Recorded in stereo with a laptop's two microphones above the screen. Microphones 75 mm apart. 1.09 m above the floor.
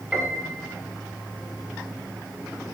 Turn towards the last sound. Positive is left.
turn(degrees=-10)  # may be behind; listen again after turning